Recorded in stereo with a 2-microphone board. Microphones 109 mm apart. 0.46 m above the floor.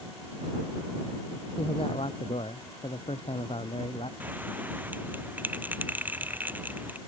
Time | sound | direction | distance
1.6 | a man speaking | 65° left (ahead or behind) | ?
4.2 | a bell | 15° right (ahead or behind) | ?